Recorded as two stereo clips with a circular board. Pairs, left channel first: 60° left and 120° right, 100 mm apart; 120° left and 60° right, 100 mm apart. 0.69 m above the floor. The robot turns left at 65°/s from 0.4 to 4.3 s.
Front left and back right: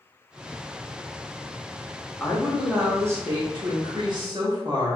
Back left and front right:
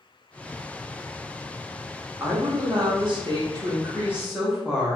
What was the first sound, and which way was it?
A woman speaking, 10° right.